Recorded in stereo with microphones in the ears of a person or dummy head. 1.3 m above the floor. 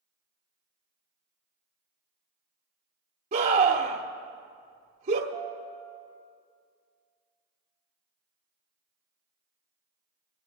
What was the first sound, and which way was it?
A scream, 40° right (ahead or behind).